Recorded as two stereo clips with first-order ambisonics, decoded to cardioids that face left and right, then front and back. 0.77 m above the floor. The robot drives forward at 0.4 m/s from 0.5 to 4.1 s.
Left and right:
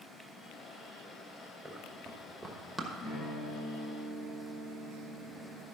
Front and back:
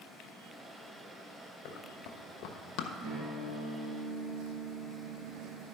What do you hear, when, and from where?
1.6 s running footsteps: 15° right, 2 m; by 2.9 s 5° left, 1.1 m
3.0 s a guitar: straight behind, 3 m